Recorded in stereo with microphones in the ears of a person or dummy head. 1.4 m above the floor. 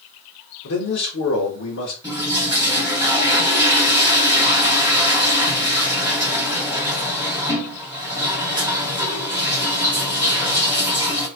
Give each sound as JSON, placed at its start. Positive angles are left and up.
{"t": 0.6, "sound": "a man speaking", "side_deg": 70, "distance_m": 1.2}
{"t": 2.0, "sound": "a toilet flushing", "side_deg": -15, "distance_m": 2.5}